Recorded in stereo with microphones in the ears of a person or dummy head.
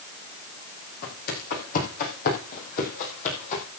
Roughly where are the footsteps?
Left.